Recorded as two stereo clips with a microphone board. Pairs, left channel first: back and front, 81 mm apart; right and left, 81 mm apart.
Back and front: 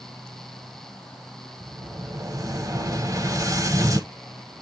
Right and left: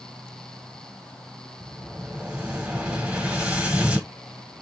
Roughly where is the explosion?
Ahead.